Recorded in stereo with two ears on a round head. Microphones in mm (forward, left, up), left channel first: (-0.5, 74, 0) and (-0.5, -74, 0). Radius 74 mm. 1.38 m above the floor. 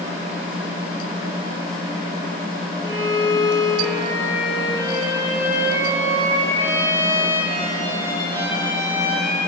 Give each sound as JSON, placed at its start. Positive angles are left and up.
{"t": 2.8, "sound": "a violin", "side_deg": -15, "distance_m": 4.0}